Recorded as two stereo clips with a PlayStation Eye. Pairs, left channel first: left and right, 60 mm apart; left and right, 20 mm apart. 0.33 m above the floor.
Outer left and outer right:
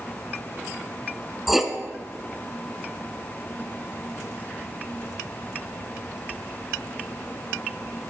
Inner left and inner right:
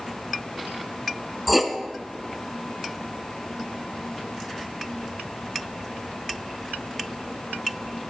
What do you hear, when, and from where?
1.5 s writing: 5° right (ahead or behind), 1.2 m